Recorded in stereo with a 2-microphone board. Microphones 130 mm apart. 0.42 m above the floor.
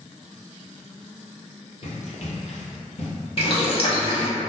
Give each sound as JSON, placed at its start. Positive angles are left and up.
{"t": 1.8, "sound": "running footsteps", "side_deg": 55, "distance_m": 0.8}
{"t": 3.4, "sound": "boiling", "side_deg": 50, "distance_m": 0.5}